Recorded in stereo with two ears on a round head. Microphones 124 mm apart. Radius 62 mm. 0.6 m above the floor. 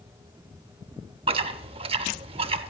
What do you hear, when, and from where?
1.3 s chewing: 40° right (ahead or behind), 0.6 m